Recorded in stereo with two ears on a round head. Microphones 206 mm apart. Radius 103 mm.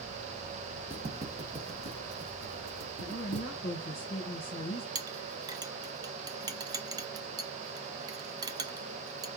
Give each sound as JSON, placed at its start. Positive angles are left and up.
{"t": 0.9, "sound": "footsteps", "side_deg": -10, "distance_m": 1.8}
{"t": 3.0, "sound": "a woman speaking", "side_deg": 50, "distance_m": 1.4}
{"t": 5.0, "sound": "a clink", "side_deg": -15, "distance_m": 0.6}